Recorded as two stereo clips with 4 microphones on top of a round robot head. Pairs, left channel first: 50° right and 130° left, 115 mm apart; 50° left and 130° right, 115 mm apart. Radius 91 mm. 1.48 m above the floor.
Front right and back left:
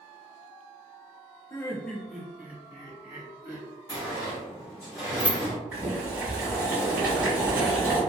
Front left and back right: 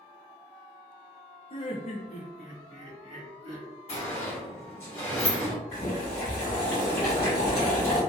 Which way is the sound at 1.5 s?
15° left.